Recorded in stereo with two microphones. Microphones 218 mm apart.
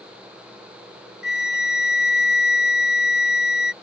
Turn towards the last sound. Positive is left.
turn(degrees=50)  # may be behind; listen again after turning